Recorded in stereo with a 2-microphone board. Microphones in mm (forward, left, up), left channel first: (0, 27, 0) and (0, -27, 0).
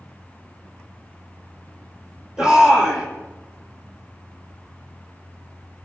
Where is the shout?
10° right (ahead or behind), 6.5 m.